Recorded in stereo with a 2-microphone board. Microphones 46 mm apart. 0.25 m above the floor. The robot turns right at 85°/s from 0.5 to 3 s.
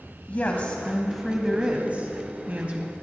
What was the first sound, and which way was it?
A woman speaking, 115° left.